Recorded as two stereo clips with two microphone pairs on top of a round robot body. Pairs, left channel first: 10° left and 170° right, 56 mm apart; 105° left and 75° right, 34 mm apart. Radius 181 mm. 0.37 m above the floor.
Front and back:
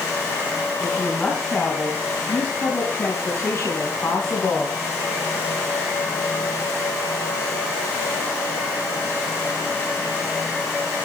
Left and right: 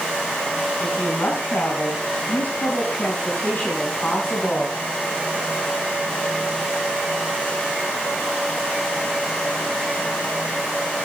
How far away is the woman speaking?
About 4.5 m.